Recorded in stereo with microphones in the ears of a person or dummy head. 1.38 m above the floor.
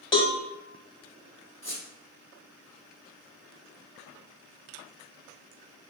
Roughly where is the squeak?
Left.